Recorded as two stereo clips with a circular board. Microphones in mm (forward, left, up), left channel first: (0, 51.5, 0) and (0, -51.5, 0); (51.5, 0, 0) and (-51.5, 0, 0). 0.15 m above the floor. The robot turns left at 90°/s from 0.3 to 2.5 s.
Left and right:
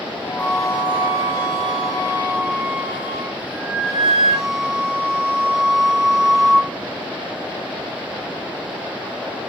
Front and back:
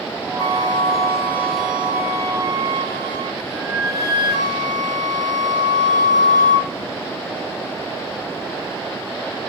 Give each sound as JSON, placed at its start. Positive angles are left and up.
{"t": 0.4, "sound": "a flute", "azimuth_deg": 20, "distance_m": 1.4}